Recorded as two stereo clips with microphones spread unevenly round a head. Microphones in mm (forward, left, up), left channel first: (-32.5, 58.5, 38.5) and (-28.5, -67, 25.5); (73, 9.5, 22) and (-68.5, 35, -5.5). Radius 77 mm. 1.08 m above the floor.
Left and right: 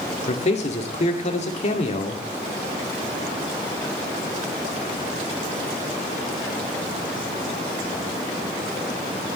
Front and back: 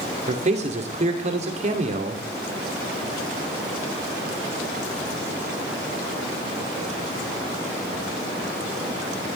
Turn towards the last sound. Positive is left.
turn(degrees=125)